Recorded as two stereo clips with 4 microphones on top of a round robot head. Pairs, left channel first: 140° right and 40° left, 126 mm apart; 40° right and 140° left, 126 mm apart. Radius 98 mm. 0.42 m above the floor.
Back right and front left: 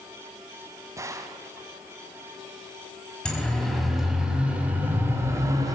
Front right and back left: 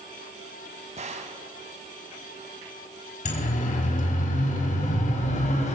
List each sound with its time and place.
1.0 s a gunshot: 105° left, 2.0 m
3.2 s a siren: 55° right, 4.5 m; by 5.8 s 20° right, 4 m